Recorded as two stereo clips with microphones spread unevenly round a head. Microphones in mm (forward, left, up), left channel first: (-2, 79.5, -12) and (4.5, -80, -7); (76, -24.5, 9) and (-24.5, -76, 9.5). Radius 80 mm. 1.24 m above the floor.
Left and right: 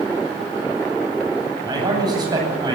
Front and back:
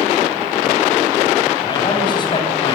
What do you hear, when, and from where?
1.6 s a man speaking: 20° right, 10 m